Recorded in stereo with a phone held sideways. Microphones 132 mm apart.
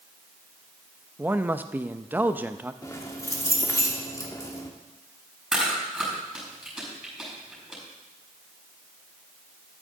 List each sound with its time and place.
1.2 s a man speaking: 15° right (ahead or behind), 0.5 m
2.8 s keys jangling: 25° left (ahead or behind), 1.2 m
5.5 s chewing: 5° right (ahead or behind), 6 m